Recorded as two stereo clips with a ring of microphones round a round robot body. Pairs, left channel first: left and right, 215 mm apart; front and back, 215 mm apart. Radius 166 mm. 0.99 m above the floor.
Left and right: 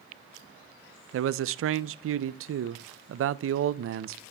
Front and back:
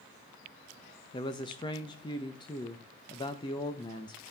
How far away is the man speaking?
About 0.5 m.